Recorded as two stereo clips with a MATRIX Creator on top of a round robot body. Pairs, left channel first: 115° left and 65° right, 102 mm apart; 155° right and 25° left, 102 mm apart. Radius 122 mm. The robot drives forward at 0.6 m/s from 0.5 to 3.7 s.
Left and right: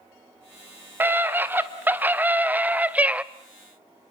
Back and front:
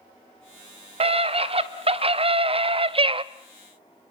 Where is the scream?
5° left, 2.5 m; by 3.2 s 10° left, 1.0 m.